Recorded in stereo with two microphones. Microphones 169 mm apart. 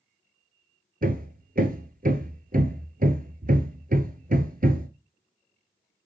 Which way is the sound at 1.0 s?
60° right (ahead or behind).